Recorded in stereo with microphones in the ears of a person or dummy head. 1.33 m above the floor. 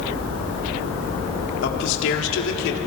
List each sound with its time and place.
1.6 s a man speaking: 70° left (ahead or behind), 4 m; by 2.8 s 65° left (ahead or behind), 3.5 m